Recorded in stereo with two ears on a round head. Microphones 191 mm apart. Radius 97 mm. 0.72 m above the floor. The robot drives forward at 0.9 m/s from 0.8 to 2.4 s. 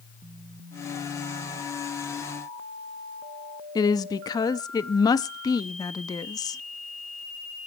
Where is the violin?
I don't hear a violin.